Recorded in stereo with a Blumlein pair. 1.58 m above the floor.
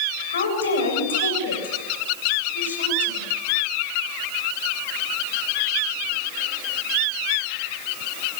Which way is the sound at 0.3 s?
70° left.